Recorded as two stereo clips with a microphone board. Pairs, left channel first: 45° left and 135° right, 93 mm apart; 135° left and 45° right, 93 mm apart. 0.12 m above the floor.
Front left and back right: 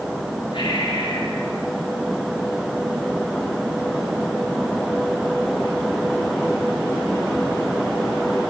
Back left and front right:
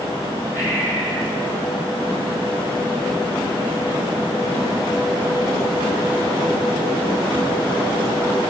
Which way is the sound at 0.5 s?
25° left.